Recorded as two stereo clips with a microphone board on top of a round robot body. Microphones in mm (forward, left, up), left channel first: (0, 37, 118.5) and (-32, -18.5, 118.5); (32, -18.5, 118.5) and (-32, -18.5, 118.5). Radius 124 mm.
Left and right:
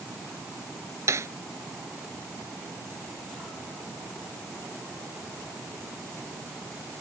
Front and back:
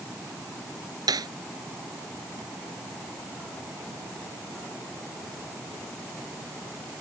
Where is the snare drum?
165° right.